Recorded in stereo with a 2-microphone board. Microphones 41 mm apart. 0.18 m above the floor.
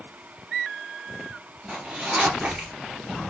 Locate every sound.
1.7 s a zipper: 15° right (ahead or behind), 1.8 m